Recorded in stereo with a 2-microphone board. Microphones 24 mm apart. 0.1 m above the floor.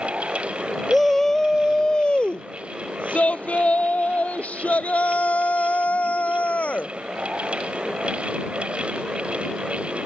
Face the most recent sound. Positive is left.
turn(degrees=70)  # may be behind; listen again after turning